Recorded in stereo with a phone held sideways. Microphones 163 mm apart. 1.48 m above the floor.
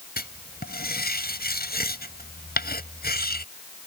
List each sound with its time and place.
0.2 s writing: 75° left (ahead or behind)